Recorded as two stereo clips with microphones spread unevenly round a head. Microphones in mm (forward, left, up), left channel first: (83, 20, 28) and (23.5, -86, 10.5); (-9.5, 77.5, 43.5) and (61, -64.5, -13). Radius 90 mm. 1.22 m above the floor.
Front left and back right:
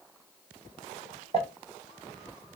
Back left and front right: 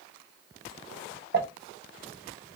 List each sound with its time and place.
1.3 s crumpling: 95° right, 1.3 m